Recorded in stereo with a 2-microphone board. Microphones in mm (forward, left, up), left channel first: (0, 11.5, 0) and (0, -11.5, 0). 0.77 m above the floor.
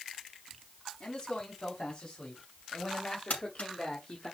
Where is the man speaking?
50° left (ahead or behind), 4.5 m; by 4.3 s 40° left (ahead or behind), 1.7 m.